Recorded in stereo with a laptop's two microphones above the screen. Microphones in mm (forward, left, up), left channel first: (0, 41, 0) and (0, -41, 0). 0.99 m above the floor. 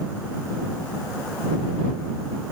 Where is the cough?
No cough in this recording.